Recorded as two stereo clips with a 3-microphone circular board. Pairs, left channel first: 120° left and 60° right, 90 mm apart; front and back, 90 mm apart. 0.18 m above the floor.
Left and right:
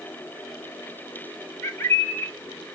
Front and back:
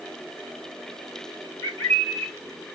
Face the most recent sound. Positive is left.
turn(degrees=60)